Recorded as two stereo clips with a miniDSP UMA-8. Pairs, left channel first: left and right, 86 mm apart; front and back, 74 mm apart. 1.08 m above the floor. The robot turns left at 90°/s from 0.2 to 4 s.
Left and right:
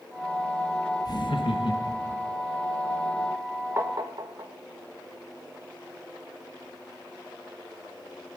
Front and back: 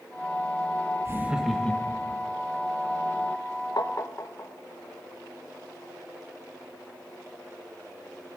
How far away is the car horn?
I don't hear a car horn.